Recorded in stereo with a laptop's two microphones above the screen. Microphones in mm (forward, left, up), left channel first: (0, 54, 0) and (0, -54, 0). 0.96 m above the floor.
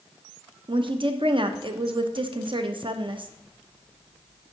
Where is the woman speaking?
50° right (ahead or behind), 0.7 m.